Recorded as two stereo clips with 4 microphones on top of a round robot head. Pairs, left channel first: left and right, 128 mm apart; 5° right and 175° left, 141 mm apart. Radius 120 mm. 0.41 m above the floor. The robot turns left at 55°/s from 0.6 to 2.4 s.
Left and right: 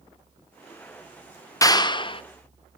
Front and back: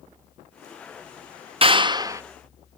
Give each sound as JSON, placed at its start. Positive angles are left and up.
{"t": 1.6, "sound": "a clap", "azimuth_deg": 145, "distance_m": 0.8}